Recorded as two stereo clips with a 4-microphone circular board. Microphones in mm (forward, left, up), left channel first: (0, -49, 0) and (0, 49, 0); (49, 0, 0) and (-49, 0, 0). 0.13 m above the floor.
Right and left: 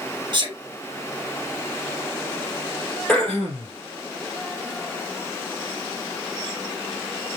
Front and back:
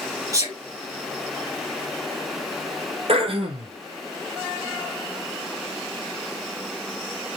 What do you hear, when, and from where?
0.3 s a sneeze: 130° left, 3.5 m
3.1 s throat clearing: 170° right, 2 m